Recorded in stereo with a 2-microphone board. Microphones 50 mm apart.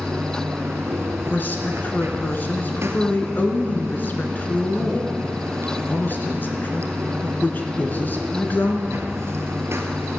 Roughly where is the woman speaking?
Left.